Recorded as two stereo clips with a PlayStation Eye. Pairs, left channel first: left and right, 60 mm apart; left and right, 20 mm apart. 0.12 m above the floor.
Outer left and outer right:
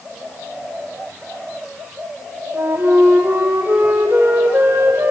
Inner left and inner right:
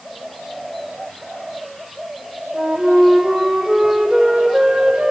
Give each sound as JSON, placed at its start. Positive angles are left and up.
{"t": 2.5, "sound": "a flute", "side_deg": -35, "distance_m": 2.5}